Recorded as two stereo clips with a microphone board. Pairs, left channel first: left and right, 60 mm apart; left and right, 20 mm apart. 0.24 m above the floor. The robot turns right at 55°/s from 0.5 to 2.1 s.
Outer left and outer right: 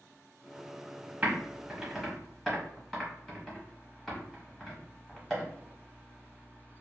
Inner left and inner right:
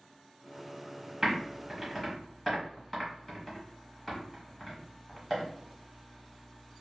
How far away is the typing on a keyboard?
About 1.0 m.